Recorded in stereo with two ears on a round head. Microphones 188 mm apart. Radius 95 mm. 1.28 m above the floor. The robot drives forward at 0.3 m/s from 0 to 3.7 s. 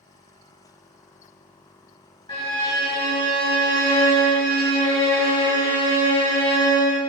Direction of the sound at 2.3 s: 25° left (ahead or behind).